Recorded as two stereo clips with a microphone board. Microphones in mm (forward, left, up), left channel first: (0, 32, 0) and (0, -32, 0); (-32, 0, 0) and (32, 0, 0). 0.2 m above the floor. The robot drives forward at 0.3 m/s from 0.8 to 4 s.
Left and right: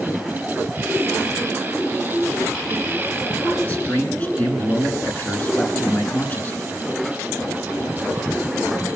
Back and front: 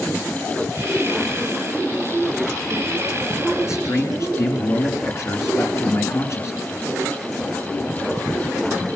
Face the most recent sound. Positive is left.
turn(degrees=150)